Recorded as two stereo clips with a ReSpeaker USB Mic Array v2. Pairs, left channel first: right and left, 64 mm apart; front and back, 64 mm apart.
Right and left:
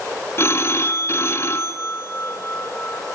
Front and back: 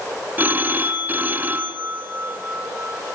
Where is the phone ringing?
125° right, 1.2 m.